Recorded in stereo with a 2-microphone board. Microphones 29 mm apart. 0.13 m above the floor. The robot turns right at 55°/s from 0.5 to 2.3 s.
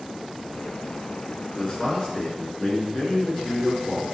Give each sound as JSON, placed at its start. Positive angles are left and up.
{"t": 1.6, "sound": "a man speaking", "azimuth_deg": 45, "distance_m": 1.5}